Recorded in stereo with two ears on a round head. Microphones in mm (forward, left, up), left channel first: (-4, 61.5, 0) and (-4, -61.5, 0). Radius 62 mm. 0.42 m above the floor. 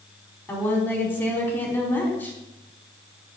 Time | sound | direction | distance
0.5 | a woman speaking | 15° left (ahead or behind) | 4 m